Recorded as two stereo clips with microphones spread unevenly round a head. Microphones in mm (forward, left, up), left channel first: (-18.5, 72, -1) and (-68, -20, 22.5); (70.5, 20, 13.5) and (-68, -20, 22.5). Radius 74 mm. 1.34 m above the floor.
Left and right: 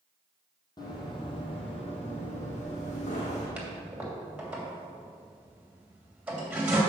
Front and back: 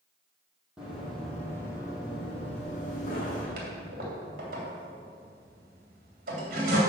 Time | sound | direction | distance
0.8 | running footsteps | 115° left | 3 m
3.6 | a toilet flushing | 165° left | 2.5 m